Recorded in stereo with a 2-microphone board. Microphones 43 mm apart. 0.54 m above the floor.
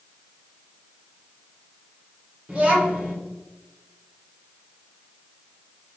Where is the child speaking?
30° right (ahead or behind), 1.2 m.